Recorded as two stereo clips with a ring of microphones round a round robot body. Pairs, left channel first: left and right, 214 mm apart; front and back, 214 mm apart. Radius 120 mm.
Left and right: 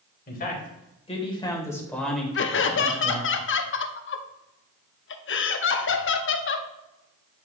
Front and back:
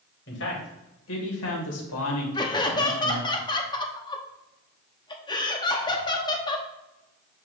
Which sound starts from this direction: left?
Laughter, at 2.4 s.